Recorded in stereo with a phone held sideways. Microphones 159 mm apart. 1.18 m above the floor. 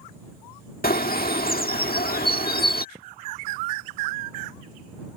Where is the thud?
40° right (ahead or behind).